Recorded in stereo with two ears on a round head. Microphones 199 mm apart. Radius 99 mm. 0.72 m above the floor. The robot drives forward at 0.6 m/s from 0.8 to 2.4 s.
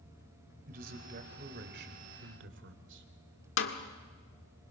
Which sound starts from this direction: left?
A snare drum, at 3.6 s.